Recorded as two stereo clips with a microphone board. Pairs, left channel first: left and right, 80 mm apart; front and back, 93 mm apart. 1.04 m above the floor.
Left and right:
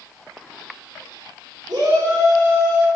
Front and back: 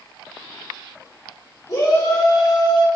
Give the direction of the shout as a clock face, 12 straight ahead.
2 o'clock.